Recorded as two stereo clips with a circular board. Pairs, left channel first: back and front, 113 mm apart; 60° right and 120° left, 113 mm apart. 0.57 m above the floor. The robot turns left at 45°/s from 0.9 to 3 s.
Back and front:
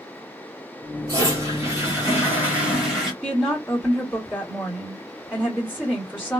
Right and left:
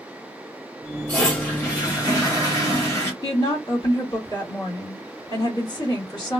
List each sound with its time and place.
1.1 s a toilet flushing: 5° left, 1.4 m; by 3.1 s 85° right, 1.4 m
3.2 s a woman speaking: 80° right, 1.7 m